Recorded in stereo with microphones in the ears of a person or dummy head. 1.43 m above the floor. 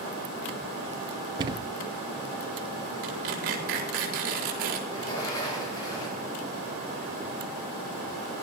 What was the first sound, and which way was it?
A thud, 25° right (ahead or behind).